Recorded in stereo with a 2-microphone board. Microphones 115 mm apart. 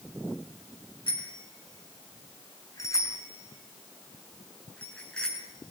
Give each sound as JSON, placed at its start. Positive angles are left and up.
{"t": 1.1, "sound": "a bicycle bell", "side_deg": 45, "distance_m": 5.5}